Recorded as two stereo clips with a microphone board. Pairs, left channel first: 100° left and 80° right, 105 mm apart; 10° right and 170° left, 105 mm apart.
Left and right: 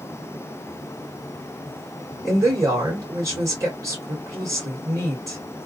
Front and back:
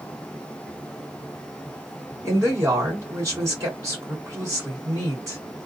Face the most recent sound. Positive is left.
turn(degrees=-135)